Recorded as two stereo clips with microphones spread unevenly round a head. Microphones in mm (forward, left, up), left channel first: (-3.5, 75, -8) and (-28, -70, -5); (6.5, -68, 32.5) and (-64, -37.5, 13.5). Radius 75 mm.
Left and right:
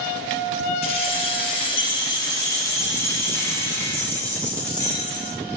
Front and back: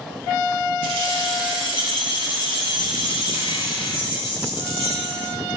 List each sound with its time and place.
0.8 s keys jangling: 25° left, 5.5 m; by 5.3 s 5° right, 7.5 m